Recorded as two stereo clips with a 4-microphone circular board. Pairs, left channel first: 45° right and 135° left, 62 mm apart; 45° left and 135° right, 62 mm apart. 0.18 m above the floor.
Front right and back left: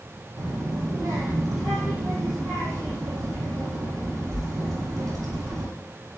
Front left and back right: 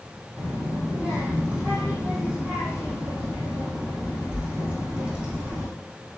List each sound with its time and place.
0.4 s a child speaking: 155° left, 4.5 m